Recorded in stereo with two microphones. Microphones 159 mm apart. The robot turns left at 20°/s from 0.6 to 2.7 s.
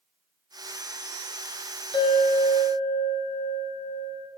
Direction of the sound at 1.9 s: 35° left (ahead or behind).